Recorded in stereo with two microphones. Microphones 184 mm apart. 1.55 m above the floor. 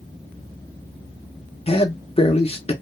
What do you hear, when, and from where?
1.7 s a man speaking: 30° left (ahead or behind), 0.7 m